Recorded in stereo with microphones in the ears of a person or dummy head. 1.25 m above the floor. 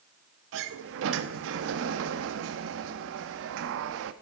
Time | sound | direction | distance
0.5 | a sliding door | 70° right (ahead or behind) | 1.1 m